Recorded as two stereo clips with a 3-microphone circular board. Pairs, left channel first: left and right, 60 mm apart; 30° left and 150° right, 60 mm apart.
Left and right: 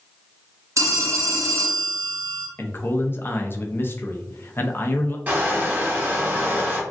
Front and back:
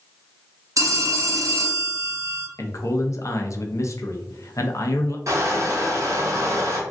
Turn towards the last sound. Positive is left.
turn(degrees=-145)